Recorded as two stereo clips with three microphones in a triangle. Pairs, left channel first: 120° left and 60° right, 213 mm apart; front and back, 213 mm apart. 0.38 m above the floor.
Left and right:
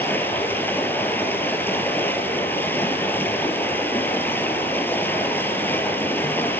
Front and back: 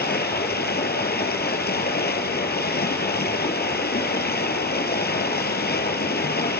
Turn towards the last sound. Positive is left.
turn(degrees=40)